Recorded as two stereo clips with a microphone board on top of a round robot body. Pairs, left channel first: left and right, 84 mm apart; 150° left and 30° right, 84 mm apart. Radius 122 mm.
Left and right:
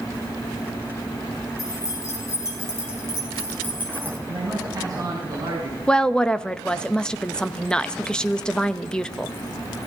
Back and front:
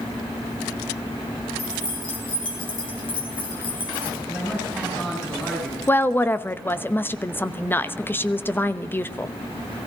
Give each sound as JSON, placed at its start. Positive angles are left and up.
{"t": 1.6, "sound": "keys jangling", "azimuth_deg": 140, "distance_m": 5.5}
{"t": 4.3, "sound": "a man speaking", "azimuth_deg": -135, "distance_m": 6.0}
{"t": 5.9, "sound": "a woman speaking", "azimuth_deg": 155, "distance_m": 1.0}